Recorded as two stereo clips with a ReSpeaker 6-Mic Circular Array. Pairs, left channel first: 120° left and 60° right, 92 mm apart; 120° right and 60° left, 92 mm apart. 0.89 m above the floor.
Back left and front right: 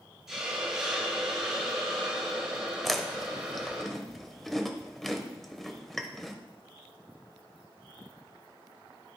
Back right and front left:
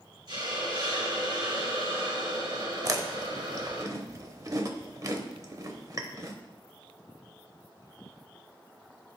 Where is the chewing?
35° left, 0.8 m.